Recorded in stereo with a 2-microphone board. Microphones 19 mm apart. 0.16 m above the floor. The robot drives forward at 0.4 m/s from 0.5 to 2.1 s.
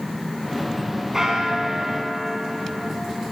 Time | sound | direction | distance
1.1 | a bell | 25° right (ahead or behind) | 1.3 m